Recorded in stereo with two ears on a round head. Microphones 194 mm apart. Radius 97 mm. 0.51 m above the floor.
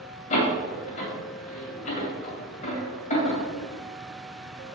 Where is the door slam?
35° left (ahead or behind), 2.5 m.